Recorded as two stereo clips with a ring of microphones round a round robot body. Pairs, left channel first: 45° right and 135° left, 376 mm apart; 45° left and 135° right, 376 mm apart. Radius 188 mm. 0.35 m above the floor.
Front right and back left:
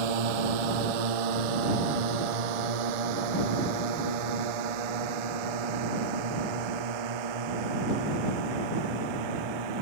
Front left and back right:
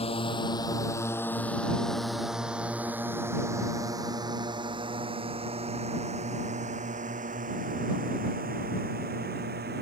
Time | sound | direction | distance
0.0 | a drone | 120° left | ?